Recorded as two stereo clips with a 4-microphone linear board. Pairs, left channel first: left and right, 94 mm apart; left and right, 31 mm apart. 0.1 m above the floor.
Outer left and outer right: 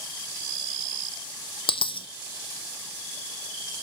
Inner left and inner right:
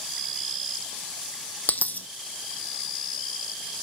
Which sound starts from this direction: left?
A dropped coin, at 1.7 s.